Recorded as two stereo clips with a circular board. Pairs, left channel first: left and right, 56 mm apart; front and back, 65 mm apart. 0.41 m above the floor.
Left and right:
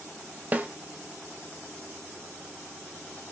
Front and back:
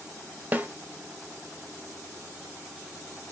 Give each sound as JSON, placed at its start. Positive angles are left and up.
{"t": 0.5, "sound": "a snare drum", "azimuth_deg": -135, "distance_m": 0.6}